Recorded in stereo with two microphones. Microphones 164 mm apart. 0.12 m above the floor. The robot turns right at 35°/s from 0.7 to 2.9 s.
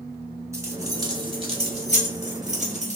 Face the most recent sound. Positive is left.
turn(degrees=-50)  # may be behind; listen again after turning